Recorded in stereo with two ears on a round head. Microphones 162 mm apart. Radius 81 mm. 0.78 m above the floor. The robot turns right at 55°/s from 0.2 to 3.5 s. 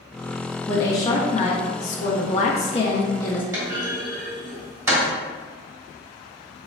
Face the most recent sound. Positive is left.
turn(degrees=-15)  # may be behind; listen again after turning